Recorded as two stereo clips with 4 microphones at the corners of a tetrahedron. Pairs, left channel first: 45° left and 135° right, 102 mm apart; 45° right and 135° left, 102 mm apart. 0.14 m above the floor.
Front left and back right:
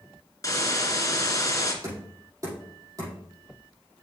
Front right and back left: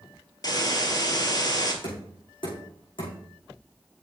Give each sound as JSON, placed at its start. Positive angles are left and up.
{"t": 0.4, "sound": "a hiss", "azimuth_deg": -5, "distance_m": 1.6}
{"t": 1.8, "sound": "knocking", "azimuth_deg": -80, "distance_m": 5.5}